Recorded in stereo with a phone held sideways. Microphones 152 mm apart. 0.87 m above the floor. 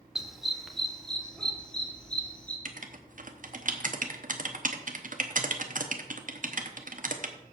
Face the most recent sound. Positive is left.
turn(degrees=-60)  # may be behind; listen again after turning